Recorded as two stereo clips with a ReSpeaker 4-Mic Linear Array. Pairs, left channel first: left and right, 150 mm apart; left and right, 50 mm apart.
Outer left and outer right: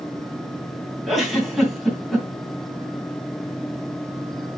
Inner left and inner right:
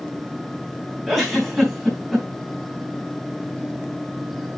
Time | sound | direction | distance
1.1 | a giggle | centre (ahead or behind) | 3.5 m